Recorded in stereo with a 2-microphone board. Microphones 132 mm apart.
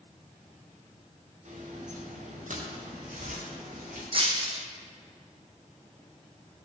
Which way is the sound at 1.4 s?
65° right (ahead or behind).